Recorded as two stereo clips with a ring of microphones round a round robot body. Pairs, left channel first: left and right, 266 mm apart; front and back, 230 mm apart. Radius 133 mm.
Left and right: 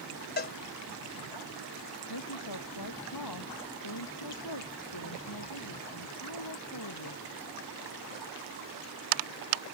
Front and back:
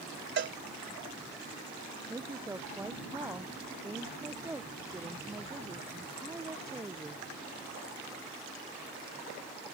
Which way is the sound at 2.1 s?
100° left.